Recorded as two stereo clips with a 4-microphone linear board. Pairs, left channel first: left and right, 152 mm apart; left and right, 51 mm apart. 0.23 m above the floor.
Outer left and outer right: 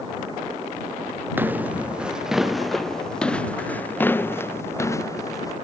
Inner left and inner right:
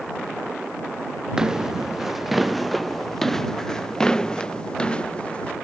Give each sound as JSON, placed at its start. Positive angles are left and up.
{"t": 1.4, "sound": "footsteps", "side_deg": -15}